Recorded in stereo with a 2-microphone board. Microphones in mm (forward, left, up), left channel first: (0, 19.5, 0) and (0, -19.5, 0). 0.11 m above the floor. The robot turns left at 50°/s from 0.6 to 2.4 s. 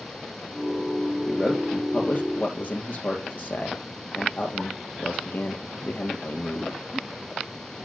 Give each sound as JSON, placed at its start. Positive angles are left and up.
{"t": 1.3, "sound": "a man speaking", "side_deg": 10, "distance_m": 3.0}